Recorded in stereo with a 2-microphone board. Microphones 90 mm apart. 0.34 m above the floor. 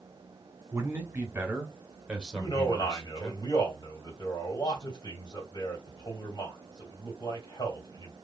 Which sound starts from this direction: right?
A man speaking, at 0.7 s.